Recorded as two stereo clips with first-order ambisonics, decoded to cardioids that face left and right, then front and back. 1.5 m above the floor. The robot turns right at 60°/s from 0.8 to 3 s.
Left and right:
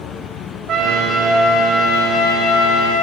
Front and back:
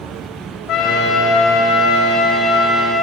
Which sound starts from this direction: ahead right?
A trumpet, at 0.7 s.